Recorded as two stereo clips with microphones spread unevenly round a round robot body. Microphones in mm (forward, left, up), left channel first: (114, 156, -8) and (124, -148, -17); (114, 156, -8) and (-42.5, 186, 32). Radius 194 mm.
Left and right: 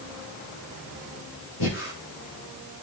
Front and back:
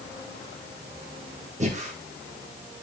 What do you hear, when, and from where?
1.6 s breathing: 125° left, 4 m